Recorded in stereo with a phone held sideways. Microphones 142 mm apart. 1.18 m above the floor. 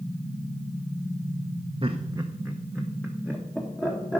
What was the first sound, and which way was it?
Laughter, 40° right (ahead or behind).